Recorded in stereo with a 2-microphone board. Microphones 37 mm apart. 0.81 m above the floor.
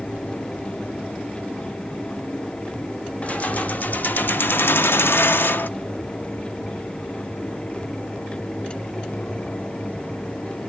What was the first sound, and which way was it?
Keys jangling, 40° left (ahead or behind).